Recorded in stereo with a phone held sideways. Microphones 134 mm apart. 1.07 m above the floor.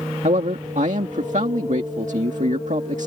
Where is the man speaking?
65° right (ahead or behind).